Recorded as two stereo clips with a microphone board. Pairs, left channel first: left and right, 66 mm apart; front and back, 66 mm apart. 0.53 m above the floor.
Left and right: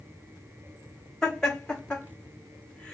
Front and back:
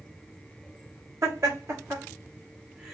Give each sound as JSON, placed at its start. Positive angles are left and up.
{"t": 1.2, "sound": "laughter", "azimuth_deg": 160, "distance_m": 1.8}